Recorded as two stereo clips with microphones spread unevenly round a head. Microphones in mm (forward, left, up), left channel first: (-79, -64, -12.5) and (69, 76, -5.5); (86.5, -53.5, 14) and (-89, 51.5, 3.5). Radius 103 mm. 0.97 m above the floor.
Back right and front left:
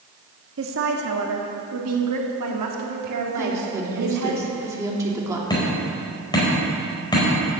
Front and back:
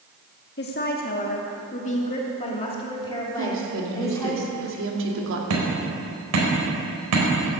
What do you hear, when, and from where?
0.6 s a woman speaking: 10° left, 2 m; by 4.3 s 45° left, 3 m
3.4 s a woman speaking: 120° left, 2.5 m
5.5 s hammering: 150° left, 4.5 m